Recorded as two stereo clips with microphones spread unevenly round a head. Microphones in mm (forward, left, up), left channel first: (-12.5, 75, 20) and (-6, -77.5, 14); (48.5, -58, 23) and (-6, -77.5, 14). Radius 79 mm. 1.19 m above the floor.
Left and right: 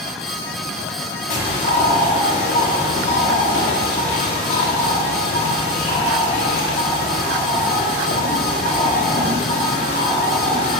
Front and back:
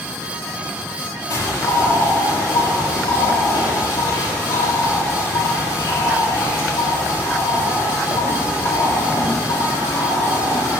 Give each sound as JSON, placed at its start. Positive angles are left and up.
{"t": 1.3, "sound": "a bird", "azimuth_deg": 45, "distance_m": 3.5}